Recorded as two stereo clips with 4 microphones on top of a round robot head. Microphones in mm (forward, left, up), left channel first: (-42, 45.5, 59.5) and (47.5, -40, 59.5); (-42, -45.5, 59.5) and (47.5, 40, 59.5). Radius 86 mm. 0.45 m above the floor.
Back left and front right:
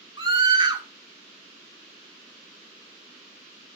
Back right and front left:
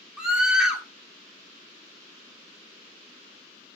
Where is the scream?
40° right, 1.8 m.